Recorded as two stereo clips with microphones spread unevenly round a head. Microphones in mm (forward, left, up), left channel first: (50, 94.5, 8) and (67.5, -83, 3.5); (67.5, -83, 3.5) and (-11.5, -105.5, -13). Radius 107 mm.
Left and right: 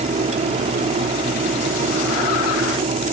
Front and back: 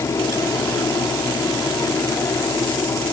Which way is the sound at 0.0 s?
30° right.